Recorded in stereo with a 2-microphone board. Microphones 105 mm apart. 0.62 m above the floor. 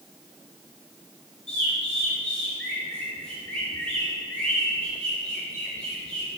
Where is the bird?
5° left (ahead or behind), 2.5 m.